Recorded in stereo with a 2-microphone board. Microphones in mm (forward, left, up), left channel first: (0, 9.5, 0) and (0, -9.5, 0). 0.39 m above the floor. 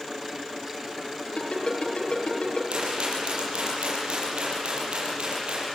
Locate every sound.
1.4 s a ringtone: 70° left (ahead or behind), 6 m
2.7 s a rattle: 65° right (ahead or behind), 8 m